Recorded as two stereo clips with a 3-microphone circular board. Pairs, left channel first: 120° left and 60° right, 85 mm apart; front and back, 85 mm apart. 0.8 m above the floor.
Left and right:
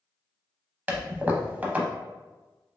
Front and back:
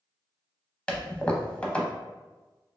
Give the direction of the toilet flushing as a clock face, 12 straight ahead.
2 o'clock.